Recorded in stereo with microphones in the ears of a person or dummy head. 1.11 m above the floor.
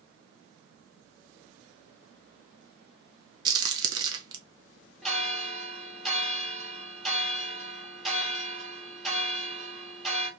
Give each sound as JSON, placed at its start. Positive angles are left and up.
{"t": 3.5, "sound": "a crack", "side_deg": -20, "distance_m": 0.7}
{"t": 5.0, "sound": "a bell", "side_deg": 0, "distance_m": 1.0}